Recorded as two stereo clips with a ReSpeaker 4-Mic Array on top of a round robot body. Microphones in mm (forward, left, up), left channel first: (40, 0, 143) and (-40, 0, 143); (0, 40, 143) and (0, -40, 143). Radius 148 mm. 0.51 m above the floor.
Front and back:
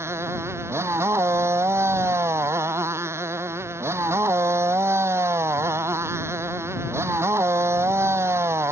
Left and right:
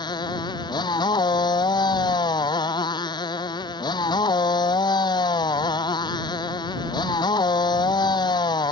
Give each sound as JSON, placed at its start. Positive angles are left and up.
{"t": 0.0, "sound": "a motorcycle", "azimuth_deg": 120}